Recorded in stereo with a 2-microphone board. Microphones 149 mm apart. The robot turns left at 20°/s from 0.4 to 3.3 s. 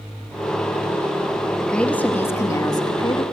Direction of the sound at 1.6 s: 175° left.